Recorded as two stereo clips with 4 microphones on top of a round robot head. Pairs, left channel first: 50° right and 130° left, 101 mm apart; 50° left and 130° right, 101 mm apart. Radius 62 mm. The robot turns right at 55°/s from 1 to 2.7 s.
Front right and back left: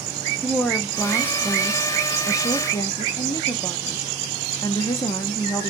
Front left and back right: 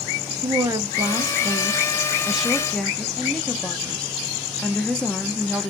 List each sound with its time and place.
0.4 s a woman speaking: 125° right, 0.6 m; by 5.7 s 30° right, 0.6 m